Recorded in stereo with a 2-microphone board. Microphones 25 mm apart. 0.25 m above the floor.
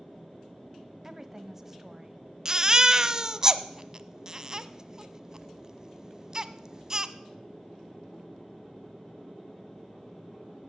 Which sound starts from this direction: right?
A baby crying, at 2.5 s.